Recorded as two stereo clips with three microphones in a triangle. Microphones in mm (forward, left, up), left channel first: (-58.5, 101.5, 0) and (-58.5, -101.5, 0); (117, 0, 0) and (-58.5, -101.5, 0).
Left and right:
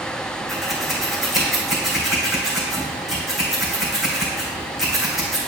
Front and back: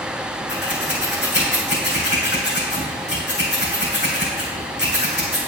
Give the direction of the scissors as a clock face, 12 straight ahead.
12 o'clock.